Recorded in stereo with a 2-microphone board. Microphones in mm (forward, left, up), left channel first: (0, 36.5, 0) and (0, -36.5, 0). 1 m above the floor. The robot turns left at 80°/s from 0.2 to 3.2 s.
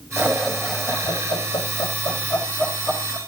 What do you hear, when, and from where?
0.2 s laughter: 30° right (ahead or behind), 5 m; by 3.2 s 25° right (ahead or behind), 5 m